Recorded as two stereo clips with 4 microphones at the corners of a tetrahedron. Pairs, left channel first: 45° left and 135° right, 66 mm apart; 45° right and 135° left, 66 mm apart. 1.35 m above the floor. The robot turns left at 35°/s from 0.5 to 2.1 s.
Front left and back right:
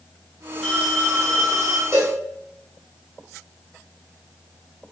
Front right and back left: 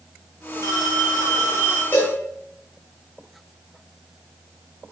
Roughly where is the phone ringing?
Ahead right.